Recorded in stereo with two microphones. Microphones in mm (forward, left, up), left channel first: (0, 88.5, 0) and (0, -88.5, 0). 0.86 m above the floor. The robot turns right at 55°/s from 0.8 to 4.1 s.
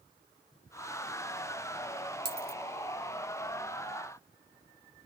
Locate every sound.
2.2 s a dropped coin: 70° right (ahead or behind), 0.7 m; by 2.6 s 60° right (ahead or behind), 0.7 m